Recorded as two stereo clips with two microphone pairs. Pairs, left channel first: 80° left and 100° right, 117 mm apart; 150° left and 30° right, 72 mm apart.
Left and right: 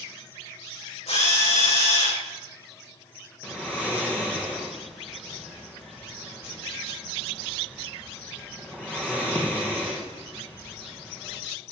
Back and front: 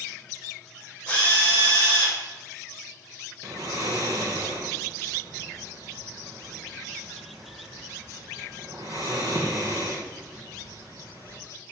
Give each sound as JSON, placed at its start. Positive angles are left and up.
{"t": 1.1, "sound": "a drill", "azimuth_deg": 80, "distance_m": 7.0}
{"t": 3.4, "sound": "snoring", "azimuth_deg": 0, "distance_m": 3.5}